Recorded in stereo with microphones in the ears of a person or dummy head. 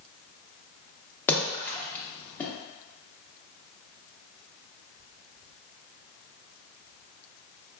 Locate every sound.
1.3 s a splash: 15° left (ahead or behind), 0.7 m